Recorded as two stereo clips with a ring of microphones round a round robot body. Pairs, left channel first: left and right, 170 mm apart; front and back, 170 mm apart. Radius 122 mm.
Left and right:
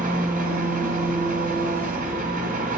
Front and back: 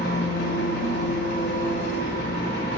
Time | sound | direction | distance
0.0 | an engine running | 55° right | 2 m